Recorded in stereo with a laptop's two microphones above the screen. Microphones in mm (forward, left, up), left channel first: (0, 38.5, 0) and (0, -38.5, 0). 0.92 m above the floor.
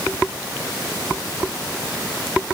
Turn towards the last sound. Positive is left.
No sound to turn to.